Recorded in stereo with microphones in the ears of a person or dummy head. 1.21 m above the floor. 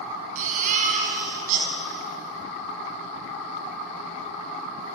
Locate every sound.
0.3 s a baby crying: 50° right (ahead or behind), 5 m